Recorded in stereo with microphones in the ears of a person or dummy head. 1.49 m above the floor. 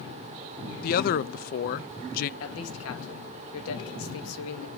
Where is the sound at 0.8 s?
45° left (ahead or behind), 0.7 m.